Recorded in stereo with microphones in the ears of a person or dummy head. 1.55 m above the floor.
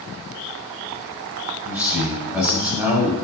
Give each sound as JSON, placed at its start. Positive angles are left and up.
{"t": 1.6, "sound": "a man speaking", "side_deg": -10, "distance_m": 0.7}